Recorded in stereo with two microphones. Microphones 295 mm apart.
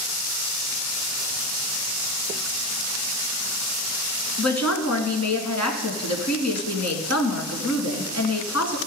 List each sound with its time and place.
4.4 s a woman speaking: 60° left (ahead or behind), 2.5 m